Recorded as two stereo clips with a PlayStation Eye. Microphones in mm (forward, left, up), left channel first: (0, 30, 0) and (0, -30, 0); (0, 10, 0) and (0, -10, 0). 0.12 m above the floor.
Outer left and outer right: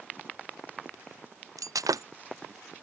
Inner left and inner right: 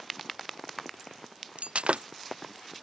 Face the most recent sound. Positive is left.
turn(degrees=-75)  # may be behind; listen again after turning